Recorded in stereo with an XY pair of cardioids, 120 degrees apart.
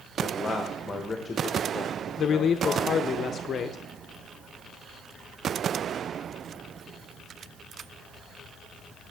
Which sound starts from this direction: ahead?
A man speaking, at 0.2 s.